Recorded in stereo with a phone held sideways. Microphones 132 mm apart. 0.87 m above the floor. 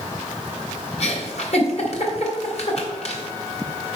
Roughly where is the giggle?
Left.